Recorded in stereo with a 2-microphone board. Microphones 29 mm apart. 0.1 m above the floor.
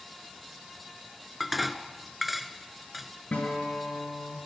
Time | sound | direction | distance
1.4 | dishes clattering | 5° right (ahead or behind) | 1.1 m
3.3 | a guitar | 70° left (ahead or behind) | 9 m